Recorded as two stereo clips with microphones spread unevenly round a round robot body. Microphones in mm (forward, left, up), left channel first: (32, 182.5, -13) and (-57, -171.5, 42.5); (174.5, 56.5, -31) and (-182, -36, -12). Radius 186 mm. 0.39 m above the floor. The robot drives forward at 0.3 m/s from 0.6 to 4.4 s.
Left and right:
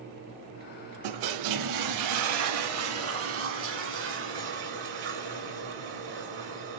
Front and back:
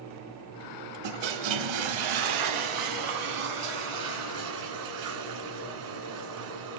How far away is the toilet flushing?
About 0.5 m.